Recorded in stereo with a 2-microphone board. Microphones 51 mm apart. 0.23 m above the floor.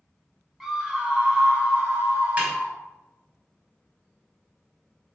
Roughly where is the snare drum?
Right.